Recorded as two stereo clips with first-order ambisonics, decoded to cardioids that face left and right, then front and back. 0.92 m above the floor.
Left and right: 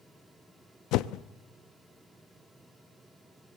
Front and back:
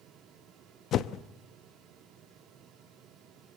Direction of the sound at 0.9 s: 55° left.